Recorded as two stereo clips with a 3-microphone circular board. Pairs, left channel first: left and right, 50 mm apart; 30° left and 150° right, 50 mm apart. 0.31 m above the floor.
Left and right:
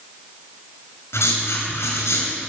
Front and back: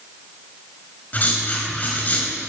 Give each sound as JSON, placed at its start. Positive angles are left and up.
{"t": 1.1, "sound": "writing", "azimuth_deg": 85, "distance_m": 4.0}